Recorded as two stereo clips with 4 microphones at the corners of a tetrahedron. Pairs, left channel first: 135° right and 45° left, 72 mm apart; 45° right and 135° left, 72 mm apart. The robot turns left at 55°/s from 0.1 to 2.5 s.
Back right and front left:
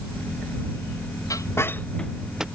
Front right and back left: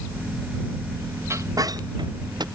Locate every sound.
1.3 s a squeak: 175° right; by 2.5 s 125° left